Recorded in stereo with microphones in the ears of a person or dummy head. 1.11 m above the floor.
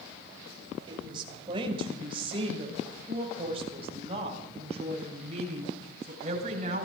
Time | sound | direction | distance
0.9 | a woman speaking | 25° right (ahead or behind) | 6 m